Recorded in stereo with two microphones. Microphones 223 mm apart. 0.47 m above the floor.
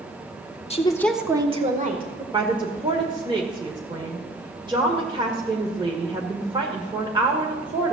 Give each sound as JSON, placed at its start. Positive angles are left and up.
{"t": 0.7, "sound": "a woman speaking", "side_deg": 25, "distance_m": 1.2}
{"t": 2.3, "sound": "a woman speaking", "side_deg": -20, "distance_m": 1.7}